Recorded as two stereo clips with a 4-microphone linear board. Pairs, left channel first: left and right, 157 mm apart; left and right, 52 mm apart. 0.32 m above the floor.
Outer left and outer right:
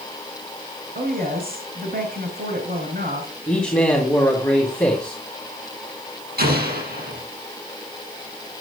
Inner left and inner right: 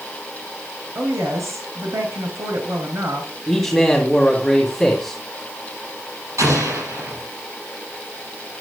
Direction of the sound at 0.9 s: 70° right (ahead or behind).